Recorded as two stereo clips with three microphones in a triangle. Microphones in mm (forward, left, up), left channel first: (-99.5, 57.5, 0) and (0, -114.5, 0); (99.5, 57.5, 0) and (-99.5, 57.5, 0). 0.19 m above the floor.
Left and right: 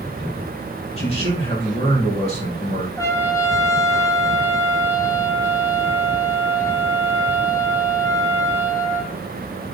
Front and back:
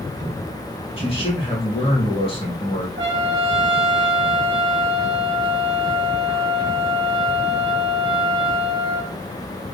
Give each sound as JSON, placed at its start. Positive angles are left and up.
{"t": 1.0, "sound": "a man speaking", "azimuth_deg": 60, "distance_m": 4.0}
{"t": 3.0, "sound": "a trumpet", "azimuth_deg": -165, "distance_m": 1.4}